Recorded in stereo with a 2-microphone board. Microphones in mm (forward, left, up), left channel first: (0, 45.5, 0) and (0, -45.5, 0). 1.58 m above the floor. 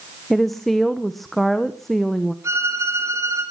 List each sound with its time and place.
0.3 s a woman speaking: centre (ahead or behind), 1.1 m
2.4 s a violin: 35° right (ahead or behind), 9 m